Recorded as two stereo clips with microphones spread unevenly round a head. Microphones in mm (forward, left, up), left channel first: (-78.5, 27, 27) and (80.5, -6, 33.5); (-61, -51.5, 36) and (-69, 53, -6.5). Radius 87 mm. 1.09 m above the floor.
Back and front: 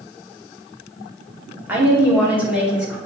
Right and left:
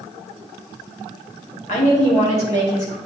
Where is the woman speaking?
90° right, 2.5 m; by 3.0 s 95° right, 4 m.